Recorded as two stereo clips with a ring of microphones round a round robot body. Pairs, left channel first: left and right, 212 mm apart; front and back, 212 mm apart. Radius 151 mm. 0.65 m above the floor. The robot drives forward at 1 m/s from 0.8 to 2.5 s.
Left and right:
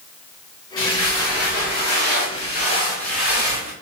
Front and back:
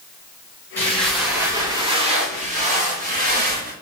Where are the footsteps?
80° left, 3.5 m; by 3.7 s 135° left, 4.5 m.